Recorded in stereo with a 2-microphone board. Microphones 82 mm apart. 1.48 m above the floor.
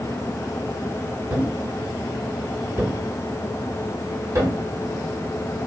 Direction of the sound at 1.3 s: 40° right (ahead or behind).